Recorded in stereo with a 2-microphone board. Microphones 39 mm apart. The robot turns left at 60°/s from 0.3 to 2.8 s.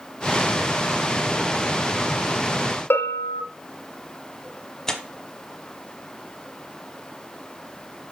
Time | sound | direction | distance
2.9 | a bell | 80° left | 0.8 m
4.9 | tearing paper | 15° left (ahead or behind) | 0.9 m